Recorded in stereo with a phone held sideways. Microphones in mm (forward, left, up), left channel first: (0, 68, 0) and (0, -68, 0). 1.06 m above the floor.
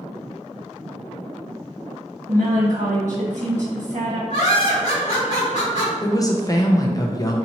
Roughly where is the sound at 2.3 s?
Right.